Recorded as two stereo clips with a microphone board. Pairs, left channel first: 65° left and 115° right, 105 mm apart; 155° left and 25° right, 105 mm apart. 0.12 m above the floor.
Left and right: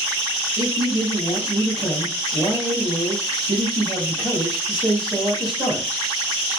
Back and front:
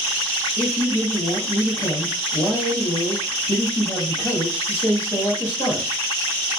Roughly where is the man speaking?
Behind right.